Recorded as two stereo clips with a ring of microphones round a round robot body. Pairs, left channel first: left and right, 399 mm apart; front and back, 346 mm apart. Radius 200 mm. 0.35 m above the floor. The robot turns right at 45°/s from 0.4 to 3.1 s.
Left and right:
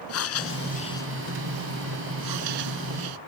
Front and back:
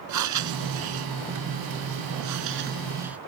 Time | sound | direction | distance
0.1 | breathing | 145° left | ?